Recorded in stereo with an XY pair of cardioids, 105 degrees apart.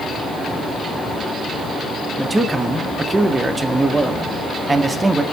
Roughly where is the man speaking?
Ahead.